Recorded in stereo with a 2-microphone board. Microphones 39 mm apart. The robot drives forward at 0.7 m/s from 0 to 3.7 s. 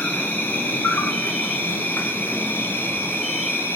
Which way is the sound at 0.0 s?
50° left (ahead or behind).